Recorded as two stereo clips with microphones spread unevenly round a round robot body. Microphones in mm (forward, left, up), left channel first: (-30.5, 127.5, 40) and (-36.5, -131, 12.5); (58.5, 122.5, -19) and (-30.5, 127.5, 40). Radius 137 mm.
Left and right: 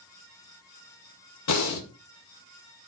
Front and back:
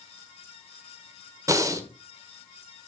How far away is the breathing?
About 1.5 m.